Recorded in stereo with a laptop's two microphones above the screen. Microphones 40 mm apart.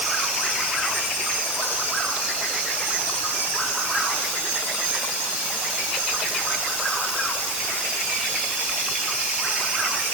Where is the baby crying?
No baby crying in this recording.